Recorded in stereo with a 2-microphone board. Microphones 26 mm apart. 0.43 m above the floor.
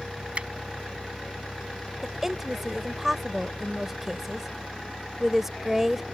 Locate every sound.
0.3 s a finger snap: 45° right (ahead or behind)
2.0 s a woman speaking: 15° right (ahead or behind)